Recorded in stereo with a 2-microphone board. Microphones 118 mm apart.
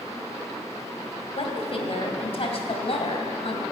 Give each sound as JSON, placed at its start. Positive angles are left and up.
{"t": 1.4, "sound": "a woman speaking", "side_deg": 55, "distance_m": 2.5}